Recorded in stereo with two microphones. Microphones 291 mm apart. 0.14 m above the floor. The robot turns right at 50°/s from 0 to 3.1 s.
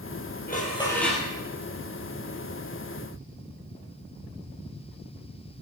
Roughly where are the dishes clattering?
Behind left.